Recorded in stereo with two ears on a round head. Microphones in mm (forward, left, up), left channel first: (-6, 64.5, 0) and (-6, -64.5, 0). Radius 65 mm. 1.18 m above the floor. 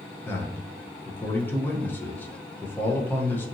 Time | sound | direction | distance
0.2 | a man speaking | 15° left (ahead or behind) | 0.6 m